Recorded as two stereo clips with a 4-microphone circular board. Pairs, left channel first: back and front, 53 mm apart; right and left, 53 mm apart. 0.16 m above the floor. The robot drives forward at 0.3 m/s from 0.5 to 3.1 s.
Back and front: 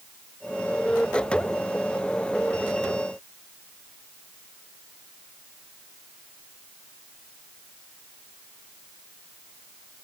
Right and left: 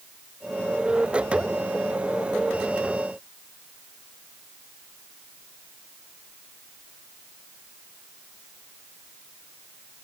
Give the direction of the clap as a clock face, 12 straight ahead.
I don't hear a clap.